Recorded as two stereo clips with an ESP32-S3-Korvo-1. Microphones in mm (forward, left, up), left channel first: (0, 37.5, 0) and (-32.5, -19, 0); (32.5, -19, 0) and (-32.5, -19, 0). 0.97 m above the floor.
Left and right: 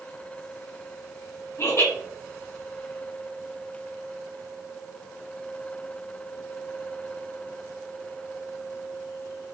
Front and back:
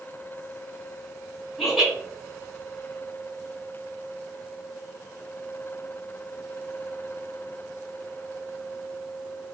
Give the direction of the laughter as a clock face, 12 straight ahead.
9 o'clock.